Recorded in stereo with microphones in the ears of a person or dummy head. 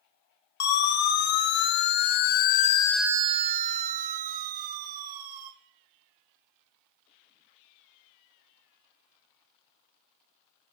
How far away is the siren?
About 3 m.